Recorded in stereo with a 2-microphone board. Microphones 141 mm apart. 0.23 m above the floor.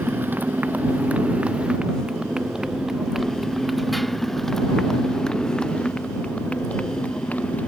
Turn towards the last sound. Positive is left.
turn(degrees=10)  # may be behind; listen again after turning